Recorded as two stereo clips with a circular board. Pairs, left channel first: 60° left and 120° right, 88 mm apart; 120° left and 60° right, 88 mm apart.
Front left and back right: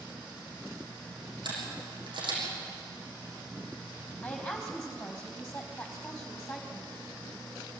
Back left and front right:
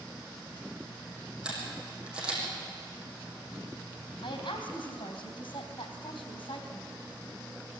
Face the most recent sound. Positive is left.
turn(degrees=135)